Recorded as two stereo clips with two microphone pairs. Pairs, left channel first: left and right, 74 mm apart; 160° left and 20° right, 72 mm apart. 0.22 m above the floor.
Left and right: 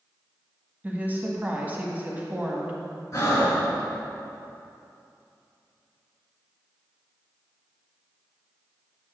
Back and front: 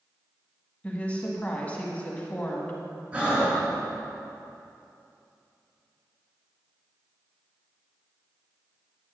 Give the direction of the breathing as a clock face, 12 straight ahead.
10 o'clock.